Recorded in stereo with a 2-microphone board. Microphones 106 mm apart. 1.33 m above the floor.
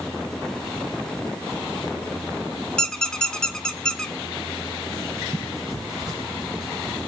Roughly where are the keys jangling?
I don't hear keys jangling.